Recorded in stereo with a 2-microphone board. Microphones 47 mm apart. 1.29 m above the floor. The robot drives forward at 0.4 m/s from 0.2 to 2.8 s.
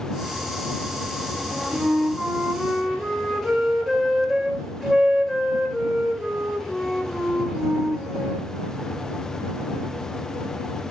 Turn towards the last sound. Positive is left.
turn(degrees=5)  # may be behind; listen again after turning